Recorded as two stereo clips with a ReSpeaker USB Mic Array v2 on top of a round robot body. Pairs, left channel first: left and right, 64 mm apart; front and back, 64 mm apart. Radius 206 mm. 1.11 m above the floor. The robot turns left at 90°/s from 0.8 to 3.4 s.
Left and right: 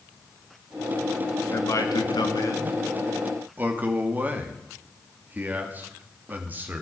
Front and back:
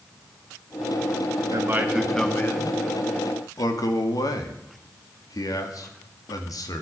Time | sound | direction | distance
1.5 | a man speaking | 145° left | 2.5 m